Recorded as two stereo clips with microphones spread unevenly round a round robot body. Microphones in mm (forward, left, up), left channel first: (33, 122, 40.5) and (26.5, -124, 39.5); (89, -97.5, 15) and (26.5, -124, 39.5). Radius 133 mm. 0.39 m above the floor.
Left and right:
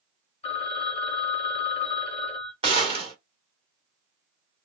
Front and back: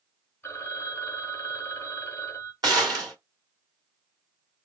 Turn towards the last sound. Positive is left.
turn(degrees=-145)